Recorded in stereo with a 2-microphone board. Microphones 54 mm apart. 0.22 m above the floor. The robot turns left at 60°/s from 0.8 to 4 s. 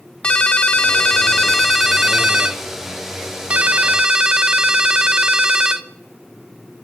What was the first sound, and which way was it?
A ringtone, 20° left (ahead or behind).